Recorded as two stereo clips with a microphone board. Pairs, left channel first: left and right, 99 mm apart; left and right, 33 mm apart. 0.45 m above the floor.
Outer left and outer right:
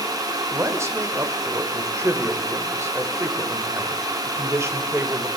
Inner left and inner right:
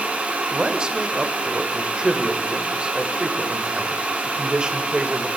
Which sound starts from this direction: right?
A man speaking, at 0.5 s.